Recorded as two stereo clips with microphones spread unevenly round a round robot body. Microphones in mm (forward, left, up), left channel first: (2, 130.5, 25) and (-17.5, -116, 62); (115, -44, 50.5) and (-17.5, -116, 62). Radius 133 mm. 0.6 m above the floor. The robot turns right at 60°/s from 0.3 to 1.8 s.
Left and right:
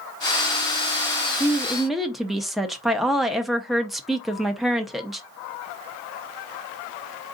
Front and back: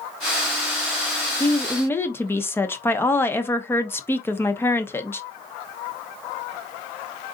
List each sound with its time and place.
1.4 s a woman speaking: 5° right, 0.8 m; by 5.2 s 20° left, 0.8 m